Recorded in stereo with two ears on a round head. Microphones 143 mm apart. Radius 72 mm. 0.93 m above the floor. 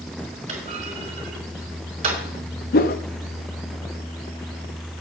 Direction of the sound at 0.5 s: 45° right (ahead or behind).